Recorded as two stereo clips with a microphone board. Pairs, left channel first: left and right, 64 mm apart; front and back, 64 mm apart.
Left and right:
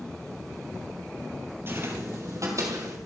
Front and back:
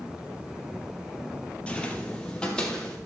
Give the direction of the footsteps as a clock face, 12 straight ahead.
2 o'clock.